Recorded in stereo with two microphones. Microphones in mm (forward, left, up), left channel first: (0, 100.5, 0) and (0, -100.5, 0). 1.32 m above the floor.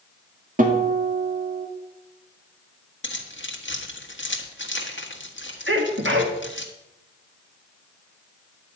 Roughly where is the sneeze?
Right.